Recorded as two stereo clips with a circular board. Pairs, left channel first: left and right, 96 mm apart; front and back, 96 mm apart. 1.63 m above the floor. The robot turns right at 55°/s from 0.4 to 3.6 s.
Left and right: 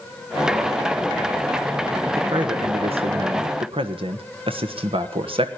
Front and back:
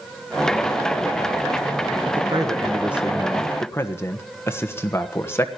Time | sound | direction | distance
2.1 | a man speaking | 150° right | 1.4 m